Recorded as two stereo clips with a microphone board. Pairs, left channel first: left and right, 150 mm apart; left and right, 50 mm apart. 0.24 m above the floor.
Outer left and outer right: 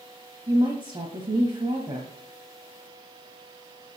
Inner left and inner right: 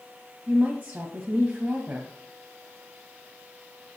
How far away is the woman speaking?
About 1.2 m.